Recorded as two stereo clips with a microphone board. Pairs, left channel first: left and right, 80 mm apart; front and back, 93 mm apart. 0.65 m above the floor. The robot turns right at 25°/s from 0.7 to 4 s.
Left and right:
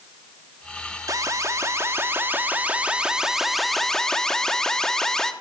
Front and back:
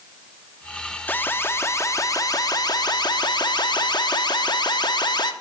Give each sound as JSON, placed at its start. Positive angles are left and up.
{"t": 1.1, "sound": "an alarm", "azimuth_deg": -65, "distance_m": 0.9}